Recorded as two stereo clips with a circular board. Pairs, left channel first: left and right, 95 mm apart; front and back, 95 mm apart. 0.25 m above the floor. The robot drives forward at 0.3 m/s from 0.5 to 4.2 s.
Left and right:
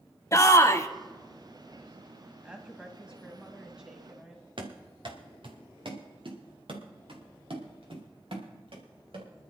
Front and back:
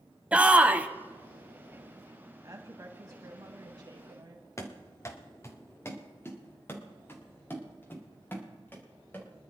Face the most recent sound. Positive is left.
turn(degrees=-70)